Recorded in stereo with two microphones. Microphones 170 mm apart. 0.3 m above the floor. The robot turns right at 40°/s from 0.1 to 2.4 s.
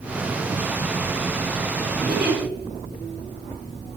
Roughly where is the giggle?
Right.